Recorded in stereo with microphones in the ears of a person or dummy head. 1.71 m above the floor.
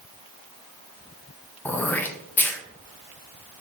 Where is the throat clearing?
10° left (ahead or behind), 0.7 m.